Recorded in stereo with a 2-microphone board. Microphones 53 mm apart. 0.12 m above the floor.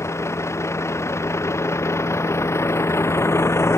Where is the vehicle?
60° left (ahead or behind); by 3.8 s 55° left (ahead or behind).